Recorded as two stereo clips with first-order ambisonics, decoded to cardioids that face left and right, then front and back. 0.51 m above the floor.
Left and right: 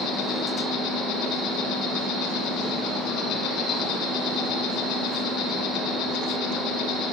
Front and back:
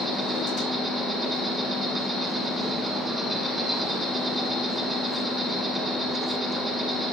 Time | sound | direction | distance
0.0 | an insect | 100° left | 1.4 m